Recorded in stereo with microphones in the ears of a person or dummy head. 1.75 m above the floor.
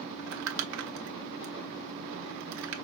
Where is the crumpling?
75° right (ahead or behind), 0.9 m.